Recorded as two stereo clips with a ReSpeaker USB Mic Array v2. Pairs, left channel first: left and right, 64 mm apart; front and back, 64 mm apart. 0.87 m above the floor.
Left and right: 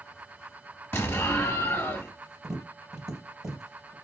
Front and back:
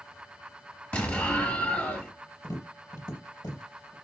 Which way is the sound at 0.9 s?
55° left.